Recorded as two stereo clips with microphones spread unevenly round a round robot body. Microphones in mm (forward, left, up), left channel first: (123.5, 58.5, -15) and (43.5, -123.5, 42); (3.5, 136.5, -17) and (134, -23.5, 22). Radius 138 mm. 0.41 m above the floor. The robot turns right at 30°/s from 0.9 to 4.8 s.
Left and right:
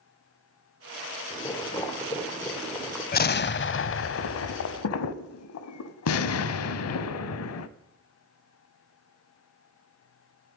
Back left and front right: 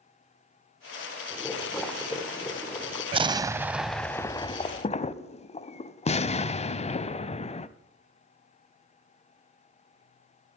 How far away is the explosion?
About 0.5 m.